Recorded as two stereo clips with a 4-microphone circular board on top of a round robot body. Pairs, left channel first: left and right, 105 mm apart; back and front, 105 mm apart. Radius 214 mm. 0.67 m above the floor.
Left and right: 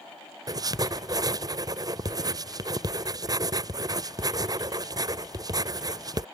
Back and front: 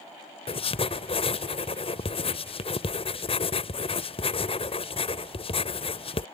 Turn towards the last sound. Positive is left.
turn(degrees=-145)